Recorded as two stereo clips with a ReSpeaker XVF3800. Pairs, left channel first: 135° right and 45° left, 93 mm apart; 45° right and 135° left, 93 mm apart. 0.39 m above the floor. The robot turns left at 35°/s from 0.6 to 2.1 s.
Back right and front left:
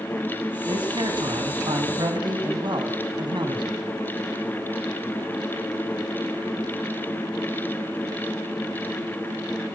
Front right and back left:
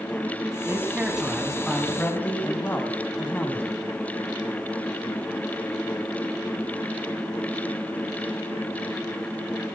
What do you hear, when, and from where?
0.7 s a man speaking: 70° left, 3 m; by 3.8 s 20° left, 3 m